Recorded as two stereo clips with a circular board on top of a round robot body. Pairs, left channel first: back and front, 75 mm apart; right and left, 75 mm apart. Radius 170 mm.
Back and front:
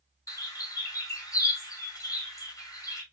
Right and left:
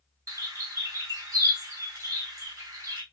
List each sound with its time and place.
0.3 s a bird: 140° left, 3 m